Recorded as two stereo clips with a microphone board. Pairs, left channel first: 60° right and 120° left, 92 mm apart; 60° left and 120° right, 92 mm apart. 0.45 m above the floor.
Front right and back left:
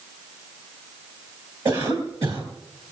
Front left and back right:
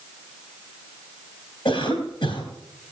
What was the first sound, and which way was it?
A cough, 85° left.